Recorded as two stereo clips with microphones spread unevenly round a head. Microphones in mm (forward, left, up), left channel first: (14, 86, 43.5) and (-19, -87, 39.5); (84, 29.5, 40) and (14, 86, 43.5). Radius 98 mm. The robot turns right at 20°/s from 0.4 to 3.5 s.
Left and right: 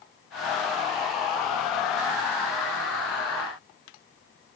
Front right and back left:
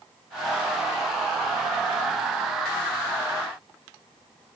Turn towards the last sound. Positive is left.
No sound to turn to.